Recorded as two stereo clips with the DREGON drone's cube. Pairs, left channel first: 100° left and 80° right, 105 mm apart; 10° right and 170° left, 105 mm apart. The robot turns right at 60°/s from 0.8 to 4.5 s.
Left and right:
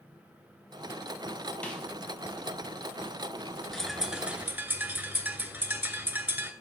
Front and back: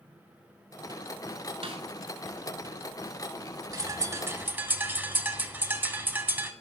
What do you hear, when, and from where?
1.6 s a snare drum: 175° left, 0.8 m; by 1.9 s 170° right, 0.8 m
3.7 s a bird: straight behind, 0.6 m; by 6.5 s 130° right, 0.6 m